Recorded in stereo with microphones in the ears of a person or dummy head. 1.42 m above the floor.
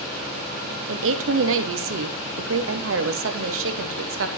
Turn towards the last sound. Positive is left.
turn(degrees=-70)  # may be behind; listen again after turning